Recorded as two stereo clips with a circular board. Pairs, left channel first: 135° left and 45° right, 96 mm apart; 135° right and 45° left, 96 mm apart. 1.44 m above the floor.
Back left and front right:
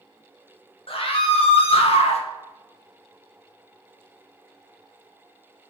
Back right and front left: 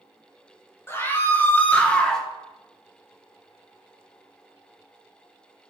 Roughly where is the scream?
Behind.